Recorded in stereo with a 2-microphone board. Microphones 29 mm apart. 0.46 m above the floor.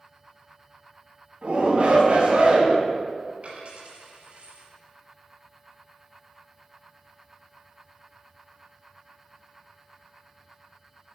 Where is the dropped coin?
50° right (ahead or behind), 4 m.